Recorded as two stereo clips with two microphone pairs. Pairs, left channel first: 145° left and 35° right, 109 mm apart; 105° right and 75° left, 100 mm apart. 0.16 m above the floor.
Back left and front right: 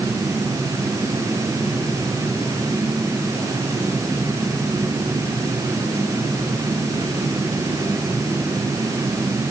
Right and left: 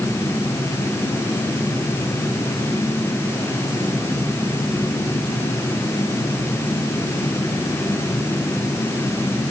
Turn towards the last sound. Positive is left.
No sound to turn to.